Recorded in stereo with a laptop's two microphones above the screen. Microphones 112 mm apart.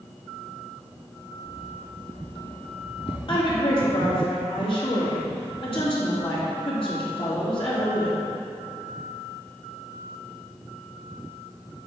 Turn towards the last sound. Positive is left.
turn(degrees=50)  # may be behind; listen again after turning